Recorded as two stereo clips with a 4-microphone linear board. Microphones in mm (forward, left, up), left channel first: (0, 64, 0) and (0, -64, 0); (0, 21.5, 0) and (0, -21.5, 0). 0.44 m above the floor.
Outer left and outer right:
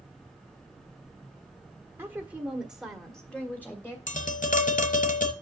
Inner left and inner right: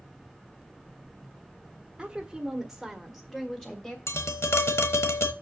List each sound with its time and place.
2.0 s a woman speaking: 15° right (ahead or behind), 1.4 m; by 4.0 s 15° left (ahead or behind), 1.5 m
4.1 s tapping: 70° left (ahead or behind), 1.0 m